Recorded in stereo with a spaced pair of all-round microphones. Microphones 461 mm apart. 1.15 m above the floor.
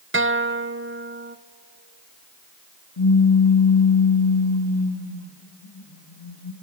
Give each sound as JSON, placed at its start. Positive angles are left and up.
{"t": 0.1, "sound": "a guitar", "side_deg": -25, "distance_m": 0.7}
{"t": 3.0, "sound": "a pop", "side_deg": 75, "distance_m": 2.0}